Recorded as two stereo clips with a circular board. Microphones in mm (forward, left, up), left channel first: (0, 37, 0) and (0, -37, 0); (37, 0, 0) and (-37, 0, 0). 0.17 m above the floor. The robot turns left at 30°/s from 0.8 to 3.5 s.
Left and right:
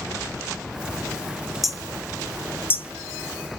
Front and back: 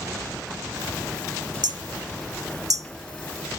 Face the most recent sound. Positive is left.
turn(degrees=130)